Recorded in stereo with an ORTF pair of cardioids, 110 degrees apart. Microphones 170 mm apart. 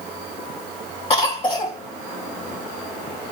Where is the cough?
35° left, 0.9 m.